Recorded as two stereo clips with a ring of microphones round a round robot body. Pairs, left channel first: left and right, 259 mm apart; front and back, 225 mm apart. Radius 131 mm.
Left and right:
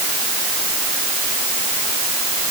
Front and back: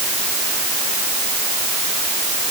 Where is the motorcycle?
I don't hear a motorcycle.